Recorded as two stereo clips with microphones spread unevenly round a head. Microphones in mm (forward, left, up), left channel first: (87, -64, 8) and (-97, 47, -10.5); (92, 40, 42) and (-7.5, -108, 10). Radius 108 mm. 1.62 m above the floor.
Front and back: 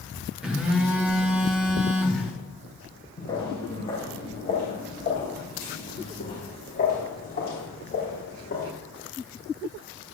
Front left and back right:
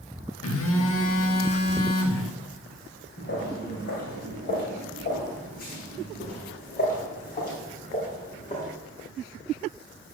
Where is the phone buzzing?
60° left, 1.4 m.